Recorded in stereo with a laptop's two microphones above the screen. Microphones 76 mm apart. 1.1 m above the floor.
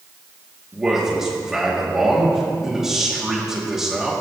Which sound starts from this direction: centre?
A man speaking, at 0.7 s.